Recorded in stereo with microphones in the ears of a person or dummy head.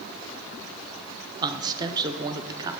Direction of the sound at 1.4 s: 20° right (ahead or behind).